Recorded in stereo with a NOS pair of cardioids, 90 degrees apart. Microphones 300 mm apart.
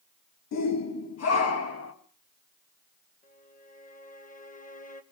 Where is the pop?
I don't hear a pop.